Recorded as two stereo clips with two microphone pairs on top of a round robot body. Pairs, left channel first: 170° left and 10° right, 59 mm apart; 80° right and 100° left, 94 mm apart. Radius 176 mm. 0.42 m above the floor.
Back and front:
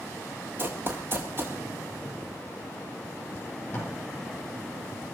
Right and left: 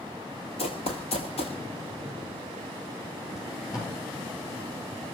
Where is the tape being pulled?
130° right, 8.5 m.